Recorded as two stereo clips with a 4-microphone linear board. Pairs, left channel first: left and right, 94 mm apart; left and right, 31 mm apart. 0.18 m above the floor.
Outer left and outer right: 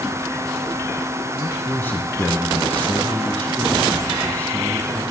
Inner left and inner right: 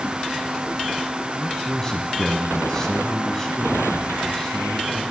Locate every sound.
1.4 s a man speaking: 20° left (ahead or behind), 1.0 m